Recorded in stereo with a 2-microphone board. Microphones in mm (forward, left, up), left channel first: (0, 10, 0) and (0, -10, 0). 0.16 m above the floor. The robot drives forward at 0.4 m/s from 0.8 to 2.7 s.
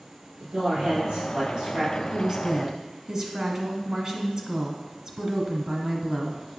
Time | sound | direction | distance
0.4 | a man speaking | 60° right (ahead or behind) | 3 m
2.1 | a woman speaking | 30° right (ahead or behind) | 1.2 m